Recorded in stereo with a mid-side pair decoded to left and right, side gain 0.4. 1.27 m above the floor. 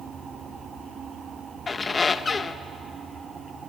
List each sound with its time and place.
1.7 s a squeak: 35° left, 1.0 m